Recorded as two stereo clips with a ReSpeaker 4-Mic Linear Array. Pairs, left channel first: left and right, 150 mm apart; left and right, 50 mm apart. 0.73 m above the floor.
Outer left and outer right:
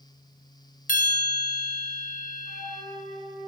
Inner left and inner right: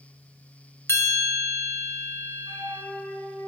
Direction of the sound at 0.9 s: 65° left (ahead or behind).